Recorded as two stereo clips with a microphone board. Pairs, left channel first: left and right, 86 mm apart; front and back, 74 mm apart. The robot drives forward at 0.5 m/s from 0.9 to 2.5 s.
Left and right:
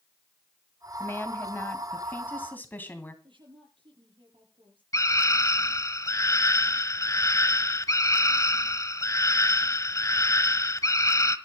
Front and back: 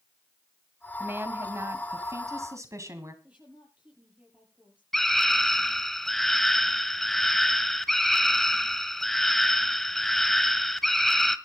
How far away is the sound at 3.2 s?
About 8 m.